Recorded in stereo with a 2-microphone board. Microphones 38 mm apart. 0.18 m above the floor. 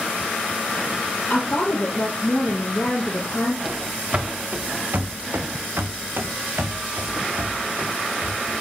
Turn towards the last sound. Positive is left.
turn(degrees=-65)  # may be behind; listen again after turning